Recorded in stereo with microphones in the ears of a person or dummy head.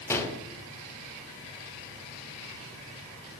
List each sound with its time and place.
0.1 s a gunshot: 15° left (ahead or behind), 1.0 m